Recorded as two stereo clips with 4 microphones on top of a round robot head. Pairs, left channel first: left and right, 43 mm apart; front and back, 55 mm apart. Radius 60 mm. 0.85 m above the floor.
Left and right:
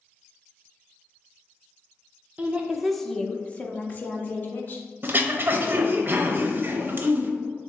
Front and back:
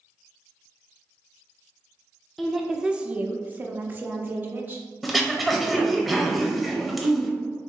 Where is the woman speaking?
90° right, 0.6 m; by 4.8 s 125° left, 1.3 m.